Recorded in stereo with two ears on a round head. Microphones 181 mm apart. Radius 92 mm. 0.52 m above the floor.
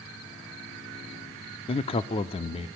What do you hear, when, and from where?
1.7 s a man speaking: 30° left (ahead or behind), 0.7 m